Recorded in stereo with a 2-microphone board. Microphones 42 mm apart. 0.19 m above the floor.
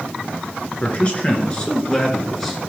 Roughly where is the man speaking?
Left.